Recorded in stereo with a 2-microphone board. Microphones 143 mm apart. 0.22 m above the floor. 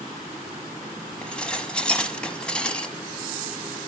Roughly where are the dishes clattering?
Centre.